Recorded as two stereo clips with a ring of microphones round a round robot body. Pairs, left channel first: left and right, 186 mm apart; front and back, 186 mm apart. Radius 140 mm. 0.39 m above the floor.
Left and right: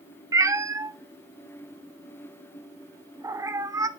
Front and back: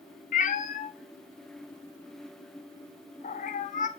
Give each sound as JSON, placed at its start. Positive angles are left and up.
{"t": 0.3, "sound": "a cat meowing", "azimuth_deg": -20, "distance_m": 0.5}